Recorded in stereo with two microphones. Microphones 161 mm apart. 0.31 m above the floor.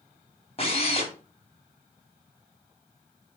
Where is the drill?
40° left (ahead or behind), 2.5 m.